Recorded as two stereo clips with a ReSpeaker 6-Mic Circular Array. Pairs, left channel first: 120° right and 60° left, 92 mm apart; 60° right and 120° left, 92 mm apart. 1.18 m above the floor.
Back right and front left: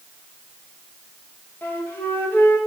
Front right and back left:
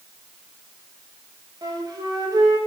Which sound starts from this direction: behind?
A flute, at 1.6 s.